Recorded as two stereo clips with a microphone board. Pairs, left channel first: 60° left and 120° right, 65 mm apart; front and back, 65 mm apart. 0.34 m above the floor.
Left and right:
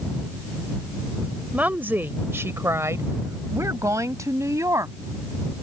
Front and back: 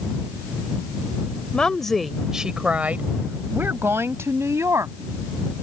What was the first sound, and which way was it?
A woman speaking, 65° right.